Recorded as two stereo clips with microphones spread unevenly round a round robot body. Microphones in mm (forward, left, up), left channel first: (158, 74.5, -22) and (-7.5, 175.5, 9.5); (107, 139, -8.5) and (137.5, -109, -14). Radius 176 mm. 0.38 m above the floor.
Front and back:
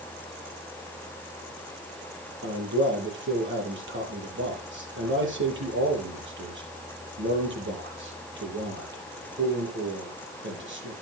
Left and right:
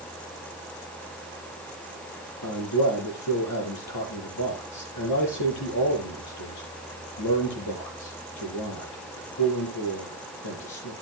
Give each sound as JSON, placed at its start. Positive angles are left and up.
{"t": 2.4, "sound": "a man speaking", "azimuth_deg": 130, "distance_m": 8.5}